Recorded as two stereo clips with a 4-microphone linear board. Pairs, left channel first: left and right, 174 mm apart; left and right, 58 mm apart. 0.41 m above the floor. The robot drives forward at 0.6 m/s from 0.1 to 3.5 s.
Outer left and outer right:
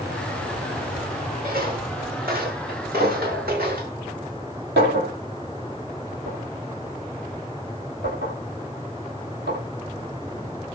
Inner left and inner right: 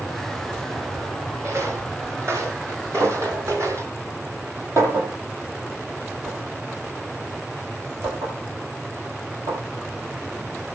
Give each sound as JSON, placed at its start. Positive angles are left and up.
{"t": 1.4, "sound": "footsteps", "side_deg": -60, "distance_m": 9.5}
{"t": 3.0, "sound": "a clink", "side_deg": -75, "distance_m": 10.0}